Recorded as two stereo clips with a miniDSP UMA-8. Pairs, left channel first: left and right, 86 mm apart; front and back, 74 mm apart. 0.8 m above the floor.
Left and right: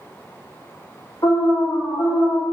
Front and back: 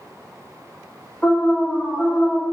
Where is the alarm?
60° left, 2 m.